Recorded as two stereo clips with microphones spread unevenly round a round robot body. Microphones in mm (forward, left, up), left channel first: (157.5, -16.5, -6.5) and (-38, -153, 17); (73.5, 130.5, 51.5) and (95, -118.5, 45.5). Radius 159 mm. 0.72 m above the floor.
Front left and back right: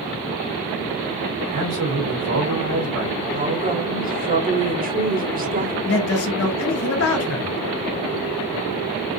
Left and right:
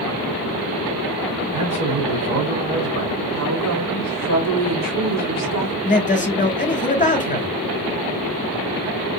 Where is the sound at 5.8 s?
35° left, 2 m.